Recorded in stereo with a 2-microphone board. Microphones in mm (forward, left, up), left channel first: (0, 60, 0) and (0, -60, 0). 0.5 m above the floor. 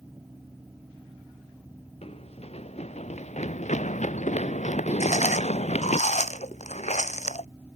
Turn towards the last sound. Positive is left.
turn(degrees=75)  # may be behind; listen again after turning